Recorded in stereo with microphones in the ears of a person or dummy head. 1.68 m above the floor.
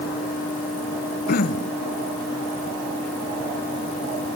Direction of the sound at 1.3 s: 55° left (ahead or behind).